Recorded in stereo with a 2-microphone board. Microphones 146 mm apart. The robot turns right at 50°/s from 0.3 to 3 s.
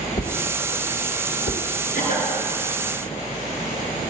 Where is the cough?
70° left (ahead or behind), 5.5 m; by 2.3 s 75° left (ahead or behind), 5.5 m.